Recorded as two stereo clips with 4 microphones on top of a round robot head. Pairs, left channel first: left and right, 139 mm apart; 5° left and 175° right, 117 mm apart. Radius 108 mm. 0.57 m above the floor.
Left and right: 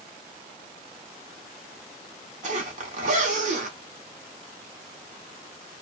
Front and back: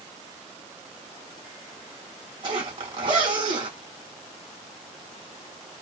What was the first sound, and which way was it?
A zipper, 125° right.